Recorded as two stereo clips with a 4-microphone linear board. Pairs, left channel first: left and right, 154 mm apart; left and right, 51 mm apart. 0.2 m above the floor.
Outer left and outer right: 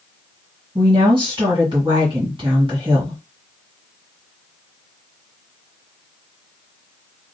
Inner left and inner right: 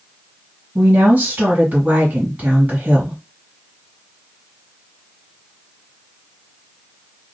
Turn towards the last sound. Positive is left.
turn(degrees=-35)  # may be behind; listen again after turning